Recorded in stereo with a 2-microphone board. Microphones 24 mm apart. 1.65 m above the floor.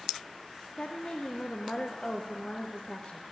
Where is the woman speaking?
45° left (ahead or behind), 0.5 m.